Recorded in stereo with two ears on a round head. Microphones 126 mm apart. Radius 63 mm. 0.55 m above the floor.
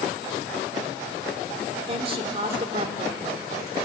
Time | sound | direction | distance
1.9 | a woman speaking | 40° right (ahead or behind) | 1.9 m